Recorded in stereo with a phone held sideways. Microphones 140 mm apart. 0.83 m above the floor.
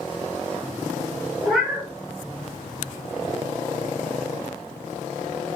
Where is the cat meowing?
Centre (ahead or behind), 1.0 m.